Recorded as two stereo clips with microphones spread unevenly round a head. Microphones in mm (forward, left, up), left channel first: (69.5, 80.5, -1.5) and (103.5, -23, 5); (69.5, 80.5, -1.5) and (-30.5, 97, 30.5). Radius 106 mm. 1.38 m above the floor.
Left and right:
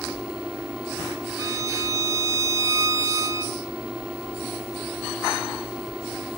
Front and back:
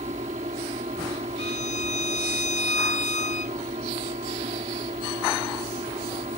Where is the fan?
155° right.